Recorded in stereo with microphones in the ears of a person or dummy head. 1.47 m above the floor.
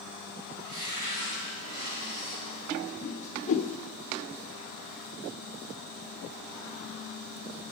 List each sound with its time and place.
0.6 s a cupboard door: 75° right (ahead or behind), 3.5 m
3.0 s a whoosh: 45° left (ahead or behind), 0.7 m